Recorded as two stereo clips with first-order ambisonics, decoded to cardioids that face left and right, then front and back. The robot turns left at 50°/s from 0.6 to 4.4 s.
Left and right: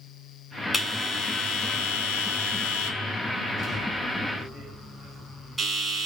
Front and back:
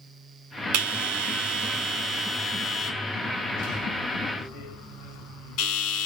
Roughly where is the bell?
Behind.